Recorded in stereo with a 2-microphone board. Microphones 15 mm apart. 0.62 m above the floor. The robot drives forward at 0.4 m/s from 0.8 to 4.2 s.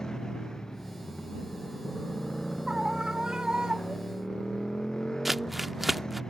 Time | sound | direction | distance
0.0 | a motorcycle | 40° left (ahead or behind) | ?
2.7 | a scream | 60° right (ahead or behind) | ?
5.2 | crumpling | 10° right (ahead or behind) | ?